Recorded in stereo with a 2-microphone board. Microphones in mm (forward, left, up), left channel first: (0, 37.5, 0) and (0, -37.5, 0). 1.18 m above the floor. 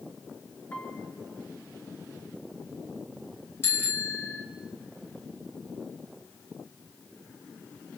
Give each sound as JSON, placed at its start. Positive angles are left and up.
{"t": 0.7, "sound": "a piano", "side_deg": 25, "distance_m": 2.5}
{"t": 3.6, "sound": "a bicycle bell", "side_deg": 30, "distance_m": 4.0}